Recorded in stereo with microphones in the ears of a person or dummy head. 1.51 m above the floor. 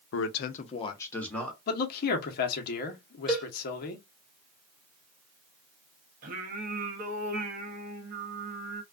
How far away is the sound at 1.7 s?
About 0.9 m.